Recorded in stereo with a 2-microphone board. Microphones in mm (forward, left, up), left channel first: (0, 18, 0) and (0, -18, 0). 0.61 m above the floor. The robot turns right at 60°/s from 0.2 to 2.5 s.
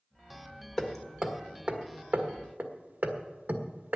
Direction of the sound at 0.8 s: 15° left (ahead or behind).